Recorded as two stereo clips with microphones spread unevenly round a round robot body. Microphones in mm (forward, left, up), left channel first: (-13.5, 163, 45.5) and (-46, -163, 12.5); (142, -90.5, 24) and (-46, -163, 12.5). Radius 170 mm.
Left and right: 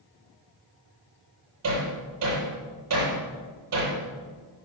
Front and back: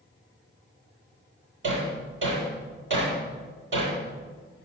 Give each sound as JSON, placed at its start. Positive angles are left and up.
{"t": 1.6, "sound": "hammering", "azimuth_deg": -135, "distance_m": 7.5}